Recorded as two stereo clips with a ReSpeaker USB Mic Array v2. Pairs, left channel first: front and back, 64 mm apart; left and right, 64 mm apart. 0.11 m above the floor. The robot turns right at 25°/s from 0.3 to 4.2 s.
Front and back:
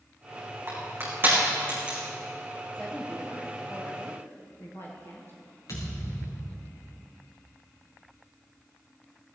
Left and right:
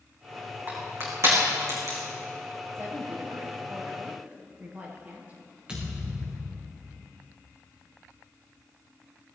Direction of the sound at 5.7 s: 20° right.